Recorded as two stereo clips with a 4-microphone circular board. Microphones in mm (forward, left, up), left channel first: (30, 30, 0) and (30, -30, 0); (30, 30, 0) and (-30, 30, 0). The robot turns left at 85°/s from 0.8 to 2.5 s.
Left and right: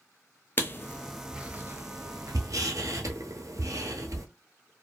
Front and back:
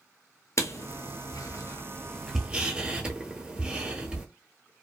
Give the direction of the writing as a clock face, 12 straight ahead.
11 o'clock.